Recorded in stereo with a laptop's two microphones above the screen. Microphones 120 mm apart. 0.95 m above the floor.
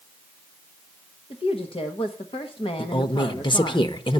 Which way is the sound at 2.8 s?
40° left (ahead or behind).